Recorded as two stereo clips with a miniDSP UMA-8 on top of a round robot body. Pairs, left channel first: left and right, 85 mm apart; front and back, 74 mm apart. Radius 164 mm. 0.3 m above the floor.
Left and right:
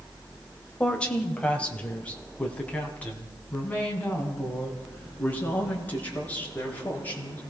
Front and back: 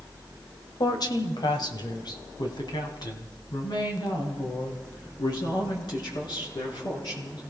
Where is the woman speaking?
15° left, 1.9 m; by 7.4 s 20° left, 6 m.